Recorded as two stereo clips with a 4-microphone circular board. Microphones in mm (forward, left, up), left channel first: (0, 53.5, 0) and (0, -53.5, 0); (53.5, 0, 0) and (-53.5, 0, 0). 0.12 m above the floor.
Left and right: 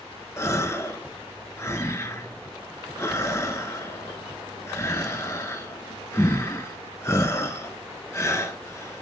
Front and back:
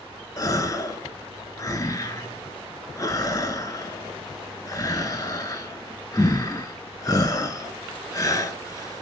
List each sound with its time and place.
0.4 s a gasp: 40° left, 0.7 m